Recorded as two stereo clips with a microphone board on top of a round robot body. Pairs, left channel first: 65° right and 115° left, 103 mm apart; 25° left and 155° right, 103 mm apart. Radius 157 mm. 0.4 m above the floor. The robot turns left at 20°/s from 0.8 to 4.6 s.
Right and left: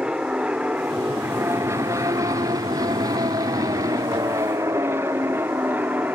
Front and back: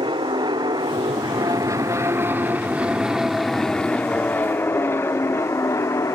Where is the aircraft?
170° right; by 6.2 s 50° left.